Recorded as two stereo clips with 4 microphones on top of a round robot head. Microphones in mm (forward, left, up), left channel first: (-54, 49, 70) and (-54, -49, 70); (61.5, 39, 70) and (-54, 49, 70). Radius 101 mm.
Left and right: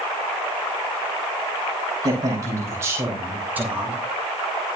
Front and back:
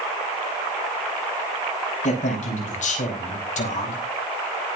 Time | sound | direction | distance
2.0 | a man speaking | 30° right | 5 m